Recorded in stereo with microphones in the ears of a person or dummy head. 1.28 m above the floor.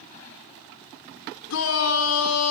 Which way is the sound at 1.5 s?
75° left (ahead or behind).